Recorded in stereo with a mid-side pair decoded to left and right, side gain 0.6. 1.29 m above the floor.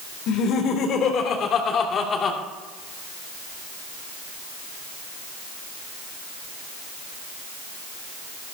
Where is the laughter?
65° left, 3.5 m; by 2.4 s 35° left, 2.5 m.